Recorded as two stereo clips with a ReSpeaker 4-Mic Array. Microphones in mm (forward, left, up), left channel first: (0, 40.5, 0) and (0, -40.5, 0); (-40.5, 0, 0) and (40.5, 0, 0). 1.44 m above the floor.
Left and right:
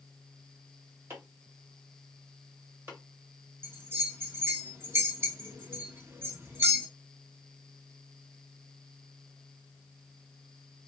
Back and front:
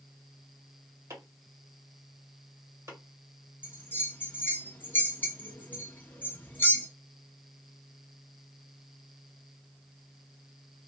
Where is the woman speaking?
I don't hear a woman speaking.